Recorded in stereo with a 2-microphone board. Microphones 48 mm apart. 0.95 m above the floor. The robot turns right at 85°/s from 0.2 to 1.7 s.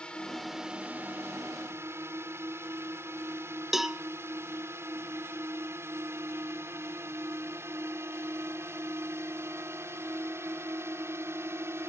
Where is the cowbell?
10° right (ahead or behind).